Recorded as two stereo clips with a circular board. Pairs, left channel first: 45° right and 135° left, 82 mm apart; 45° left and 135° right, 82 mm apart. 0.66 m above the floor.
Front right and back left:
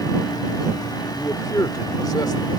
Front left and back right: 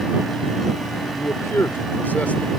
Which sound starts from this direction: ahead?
A man speaking, at 1.1 s.